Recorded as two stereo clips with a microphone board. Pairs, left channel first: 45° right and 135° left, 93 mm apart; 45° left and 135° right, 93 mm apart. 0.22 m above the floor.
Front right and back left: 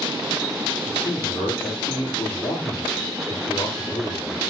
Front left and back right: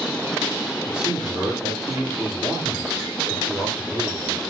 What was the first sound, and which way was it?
A man speaking, 55° right.